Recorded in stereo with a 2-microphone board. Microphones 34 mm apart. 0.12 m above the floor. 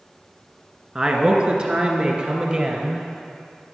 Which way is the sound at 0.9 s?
25° right (ahead or behind).